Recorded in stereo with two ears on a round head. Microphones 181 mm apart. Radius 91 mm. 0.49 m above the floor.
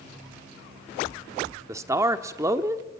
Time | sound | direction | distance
1.7 | a man speaking | 15° right (ahead or behind) | 1.1 m